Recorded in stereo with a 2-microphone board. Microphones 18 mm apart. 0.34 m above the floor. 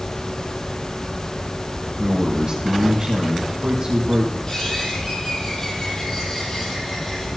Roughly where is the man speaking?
Right.